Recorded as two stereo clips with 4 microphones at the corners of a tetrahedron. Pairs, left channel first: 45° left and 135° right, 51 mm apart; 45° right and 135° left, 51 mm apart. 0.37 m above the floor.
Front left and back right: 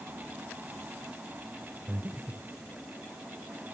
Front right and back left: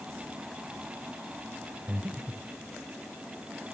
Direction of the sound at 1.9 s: Straight behind.